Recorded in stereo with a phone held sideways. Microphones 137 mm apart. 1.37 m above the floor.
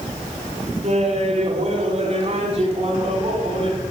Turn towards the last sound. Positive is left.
turn(degrees=-40)  # may be behind; listen again after turning